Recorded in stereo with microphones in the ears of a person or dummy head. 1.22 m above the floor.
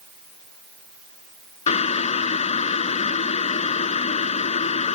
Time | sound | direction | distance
1.7 | boiling | 35° left (ahead or behind) | ?